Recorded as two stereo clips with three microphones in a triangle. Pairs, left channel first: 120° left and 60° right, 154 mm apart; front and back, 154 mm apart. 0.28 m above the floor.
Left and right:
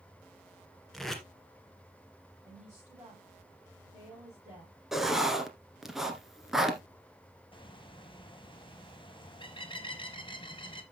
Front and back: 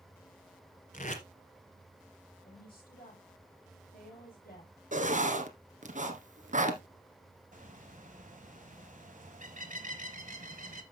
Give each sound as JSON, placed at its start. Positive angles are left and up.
{"t": 0.9, "sound": "tape being pulled", "azimuth_deg": 30, "distance_m": 1.7}
{"t": 2.4, "sound": "a woman speaking", "azimuth_deg": 5, "distance_m": 5.5}
{"t": 4.9, "sound": "writing", "azimuth_deg": -150, "distance_m": 1.4}
{"t": 7.5, "sound": "a bird", "azimuth_deg": 170, "distance_m": 1.2}